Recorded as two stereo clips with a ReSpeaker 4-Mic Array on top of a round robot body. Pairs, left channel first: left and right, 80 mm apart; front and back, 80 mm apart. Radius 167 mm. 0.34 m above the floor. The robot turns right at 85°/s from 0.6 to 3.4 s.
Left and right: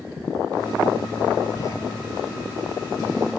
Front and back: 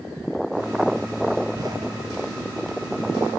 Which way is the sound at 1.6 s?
125° left.